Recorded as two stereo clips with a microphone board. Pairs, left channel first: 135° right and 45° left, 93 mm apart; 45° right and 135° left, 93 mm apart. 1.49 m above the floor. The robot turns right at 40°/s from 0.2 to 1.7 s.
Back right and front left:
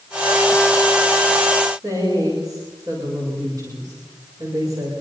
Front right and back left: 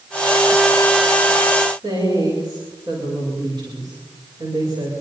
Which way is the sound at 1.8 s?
95° left.